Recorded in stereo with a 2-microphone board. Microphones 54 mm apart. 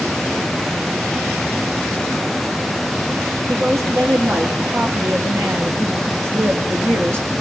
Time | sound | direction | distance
3.5 | a woman speaking | 70° right (ahead or behind) | 5 m